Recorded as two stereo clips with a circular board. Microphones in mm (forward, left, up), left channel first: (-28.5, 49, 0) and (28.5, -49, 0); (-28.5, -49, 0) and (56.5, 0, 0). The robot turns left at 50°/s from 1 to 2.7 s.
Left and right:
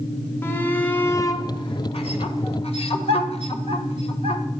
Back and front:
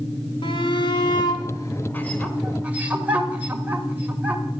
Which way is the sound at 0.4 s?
170° right.